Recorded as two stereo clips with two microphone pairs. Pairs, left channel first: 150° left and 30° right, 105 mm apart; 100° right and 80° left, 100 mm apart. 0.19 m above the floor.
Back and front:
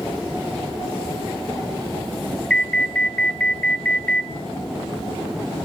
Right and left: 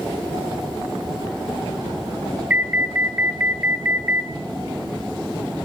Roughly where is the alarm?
Left.